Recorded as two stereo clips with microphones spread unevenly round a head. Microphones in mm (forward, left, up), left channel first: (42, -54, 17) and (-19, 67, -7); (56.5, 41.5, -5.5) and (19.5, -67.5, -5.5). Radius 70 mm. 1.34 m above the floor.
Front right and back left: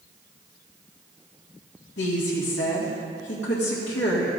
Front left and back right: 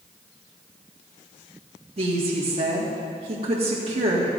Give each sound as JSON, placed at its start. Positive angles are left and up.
{"t": 2.0, "sound": "a woman speaking", "azimuth_deg": -75, "distance_m": 1.9}